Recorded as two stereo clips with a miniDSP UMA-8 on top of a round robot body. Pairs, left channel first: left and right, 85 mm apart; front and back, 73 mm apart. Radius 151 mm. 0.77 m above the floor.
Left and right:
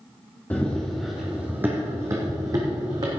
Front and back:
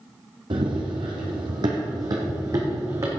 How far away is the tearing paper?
No tearing paper in this recording.